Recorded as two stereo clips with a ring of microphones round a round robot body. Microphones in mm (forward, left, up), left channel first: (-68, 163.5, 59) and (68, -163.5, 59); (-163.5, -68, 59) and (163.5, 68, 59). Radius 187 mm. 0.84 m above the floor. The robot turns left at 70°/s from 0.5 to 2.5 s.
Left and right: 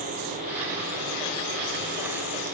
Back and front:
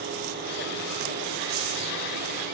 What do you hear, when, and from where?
Only background noise.